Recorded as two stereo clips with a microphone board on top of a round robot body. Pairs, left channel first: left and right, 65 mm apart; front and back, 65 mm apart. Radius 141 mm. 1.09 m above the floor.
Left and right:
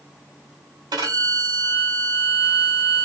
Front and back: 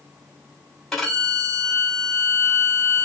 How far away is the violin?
About 2.0 m.